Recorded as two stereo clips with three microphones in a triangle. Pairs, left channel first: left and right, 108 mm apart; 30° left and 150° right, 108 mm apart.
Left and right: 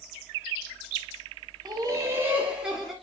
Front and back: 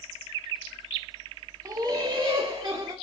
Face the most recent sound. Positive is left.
turn(degrees=-175)